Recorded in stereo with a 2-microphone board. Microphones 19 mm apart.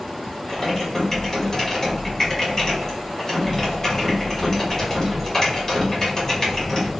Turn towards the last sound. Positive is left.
turn(degrees=20)  # may be behind; listen again after turning